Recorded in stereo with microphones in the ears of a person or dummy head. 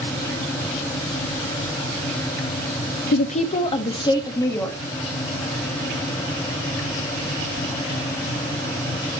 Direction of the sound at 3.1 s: 50° left (ahead or behind).